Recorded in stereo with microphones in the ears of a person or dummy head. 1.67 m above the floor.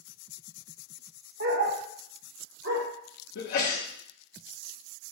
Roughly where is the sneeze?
Left.